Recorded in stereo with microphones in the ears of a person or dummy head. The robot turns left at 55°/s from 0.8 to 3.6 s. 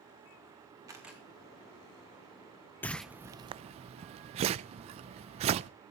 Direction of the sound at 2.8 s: 10° left (ahead or behind).